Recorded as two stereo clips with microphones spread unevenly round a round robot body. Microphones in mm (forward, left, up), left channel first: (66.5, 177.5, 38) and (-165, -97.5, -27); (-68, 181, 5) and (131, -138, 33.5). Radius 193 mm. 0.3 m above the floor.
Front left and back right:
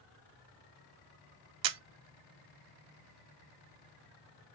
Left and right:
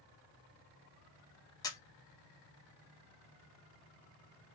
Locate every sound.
1.6 s a camera shutter: 160° right, 0.5 m